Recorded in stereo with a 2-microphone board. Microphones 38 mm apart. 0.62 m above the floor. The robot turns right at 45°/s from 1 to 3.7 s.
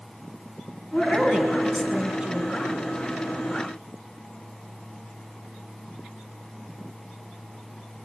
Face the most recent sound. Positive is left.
turn(degrees=-95)